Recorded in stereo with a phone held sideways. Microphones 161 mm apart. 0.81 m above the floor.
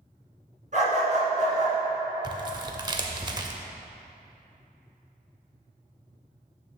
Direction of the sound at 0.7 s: 50° right (ahead or behind).